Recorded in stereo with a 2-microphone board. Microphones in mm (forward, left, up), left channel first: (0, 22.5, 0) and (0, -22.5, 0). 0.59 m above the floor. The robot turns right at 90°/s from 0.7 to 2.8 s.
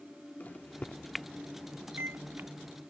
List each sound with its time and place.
0.4 s a microwave: 35° left (ahead or behind); by 2.5 s 50° right (ahead or behind)